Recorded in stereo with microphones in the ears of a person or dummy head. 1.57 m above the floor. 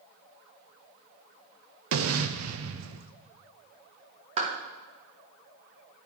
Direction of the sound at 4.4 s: 35° right (ahead or behind).